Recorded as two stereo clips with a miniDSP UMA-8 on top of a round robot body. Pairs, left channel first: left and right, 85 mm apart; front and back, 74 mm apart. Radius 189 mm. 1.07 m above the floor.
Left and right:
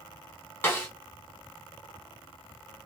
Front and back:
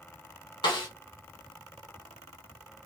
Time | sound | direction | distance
0.6 | a snare drum | 25° left | 1.1 m